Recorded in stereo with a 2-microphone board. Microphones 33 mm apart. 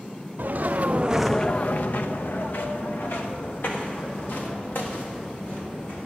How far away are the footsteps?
About 1.1 m.